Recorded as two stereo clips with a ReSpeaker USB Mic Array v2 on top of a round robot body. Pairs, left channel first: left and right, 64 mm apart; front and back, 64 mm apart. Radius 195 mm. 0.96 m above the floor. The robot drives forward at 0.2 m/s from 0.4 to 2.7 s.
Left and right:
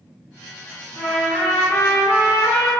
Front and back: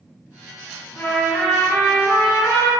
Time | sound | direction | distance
0.9 | a trumpet | 55° left | 0.9 m